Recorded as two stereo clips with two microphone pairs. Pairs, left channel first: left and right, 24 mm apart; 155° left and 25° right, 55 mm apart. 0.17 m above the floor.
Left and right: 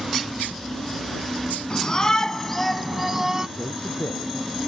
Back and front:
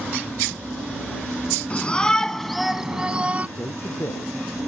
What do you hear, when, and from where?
1.7 s a shout: 105° left; by 3.5 s 45° right
3.6 s a man speaking: 115° left